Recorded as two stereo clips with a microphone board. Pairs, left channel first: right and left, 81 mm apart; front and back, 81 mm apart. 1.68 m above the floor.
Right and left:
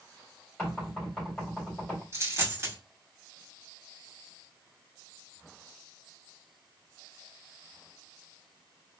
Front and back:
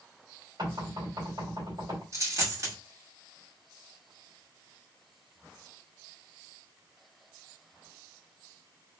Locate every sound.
0.6 s knocking: 165° right, 3 m
2.1 s a dropped coin: 140° left, 2 m